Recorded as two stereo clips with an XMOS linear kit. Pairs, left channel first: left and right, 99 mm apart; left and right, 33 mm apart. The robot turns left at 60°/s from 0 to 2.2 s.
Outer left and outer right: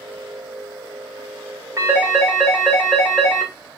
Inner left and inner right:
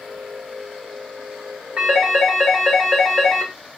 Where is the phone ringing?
30° right (ahead or behind), 2 m; by 3.5 s 5° right (ahead or behind), 2 m.